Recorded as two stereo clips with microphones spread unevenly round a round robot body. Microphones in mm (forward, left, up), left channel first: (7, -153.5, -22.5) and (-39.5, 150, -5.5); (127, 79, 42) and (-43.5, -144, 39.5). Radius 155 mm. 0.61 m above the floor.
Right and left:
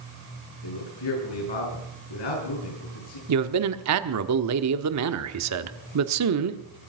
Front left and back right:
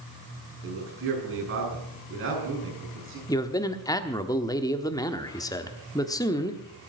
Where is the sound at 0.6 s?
85° right, 7.5 m.